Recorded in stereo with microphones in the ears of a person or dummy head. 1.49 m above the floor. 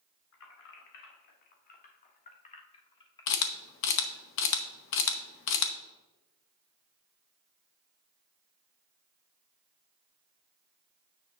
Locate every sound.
0.3 s keys jangling: 70° left (ahead or behind), 2 m; by 4.3 s 5° left (ahead or behind), 1.7 m
3.3 s a camera shutter: 60° left (ahead or behind), 0.9 m